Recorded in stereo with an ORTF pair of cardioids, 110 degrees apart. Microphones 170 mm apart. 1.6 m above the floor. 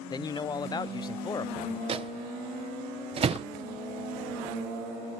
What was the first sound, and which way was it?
A man speaking, 25° left.